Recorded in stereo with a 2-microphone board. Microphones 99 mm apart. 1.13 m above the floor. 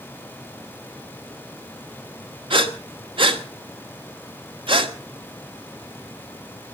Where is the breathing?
55° right (ahead or behind), 1.4 m.